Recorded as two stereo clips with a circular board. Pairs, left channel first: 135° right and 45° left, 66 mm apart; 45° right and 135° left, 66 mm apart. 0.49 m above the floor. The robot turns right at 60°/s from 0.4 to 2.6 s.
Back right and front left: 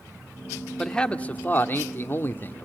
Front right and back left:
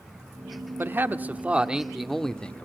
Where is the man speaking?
150° left, 1.2 m; by 2.7 s 105° right, 1.2 m.